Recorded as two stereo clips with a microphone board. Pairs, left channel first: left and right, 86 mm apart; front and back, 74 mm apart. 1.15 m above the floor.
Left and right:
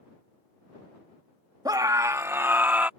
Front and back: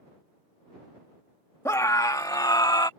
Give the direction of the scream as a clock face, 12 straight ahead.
2 o'clock.